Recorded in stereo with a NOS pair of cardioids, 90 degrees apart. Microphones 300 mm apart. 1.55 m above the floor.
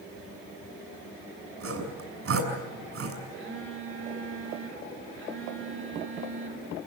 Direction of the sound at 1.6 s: 50° right.